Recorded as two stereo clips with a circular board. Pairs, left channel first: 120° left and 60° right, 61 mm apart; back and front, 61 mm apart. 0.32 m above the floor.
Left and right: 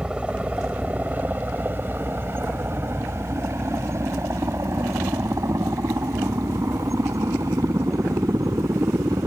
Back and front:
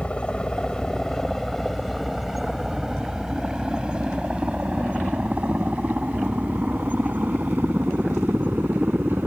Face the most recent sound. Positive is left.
turn(degrees=-50)